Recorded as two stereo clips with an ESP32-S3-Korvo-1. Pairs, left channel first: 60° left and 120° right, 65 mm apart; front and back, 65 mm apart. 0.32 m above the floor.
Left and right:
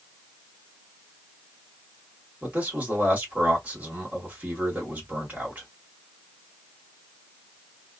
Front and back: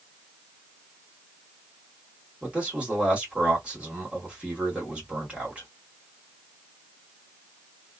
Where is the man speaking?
135° right, 1.5 m.